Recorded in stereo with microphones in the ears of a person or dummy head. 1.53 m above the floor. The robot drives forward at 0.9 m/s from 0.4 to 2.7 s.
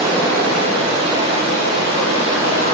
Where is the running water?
50° right (ahead or behind), 1.3 m; by 2.8 s 20° right (ahead or behind), 3 m.